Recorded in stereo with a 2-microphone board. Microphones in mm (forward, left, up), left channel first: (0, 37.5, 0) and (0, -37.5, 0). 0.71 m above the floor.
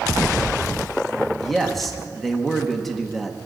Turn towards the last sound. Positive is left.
turn(degrees=0)  # may be behind; listen again after turning